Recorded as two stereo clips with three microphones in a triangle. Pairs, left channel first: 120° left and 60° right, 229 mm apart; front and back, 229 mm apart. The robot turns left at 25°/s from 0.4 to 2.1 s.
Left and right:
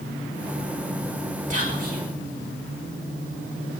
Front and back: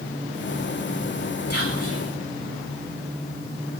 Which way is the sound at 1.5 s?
5° right.